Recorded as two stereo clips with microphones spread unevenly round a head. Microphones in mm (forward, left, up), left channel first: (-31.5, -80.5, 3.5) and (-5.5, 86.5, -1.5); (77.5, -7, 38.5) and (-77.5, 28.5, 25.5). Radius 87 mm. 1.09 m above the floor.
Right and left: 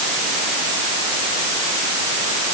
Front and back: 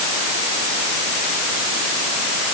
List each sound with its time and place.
Only background noise.